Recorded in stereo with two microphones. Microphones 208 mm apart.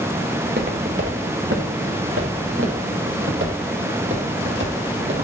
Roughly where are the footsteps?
Right.